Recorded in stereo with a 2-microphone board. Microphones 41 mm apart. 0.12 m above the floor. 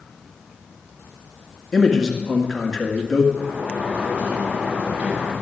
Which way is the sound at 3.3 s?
45° right (ahead or behind).